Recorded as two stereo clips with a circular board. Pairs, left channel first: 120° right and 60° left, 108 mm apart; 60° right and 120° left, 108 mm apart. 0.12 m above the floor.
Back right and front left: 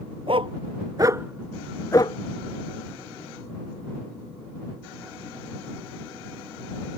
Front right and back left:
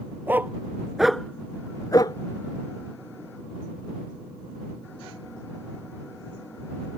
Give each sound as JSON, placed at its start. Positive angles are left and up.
{"t": 0.3, "sound": "a dog barking", "azimuth_deg": 50}